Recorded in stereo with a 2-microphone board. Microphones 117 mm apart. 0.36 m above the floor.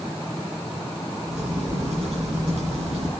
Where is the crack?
80° right, 4.5 m.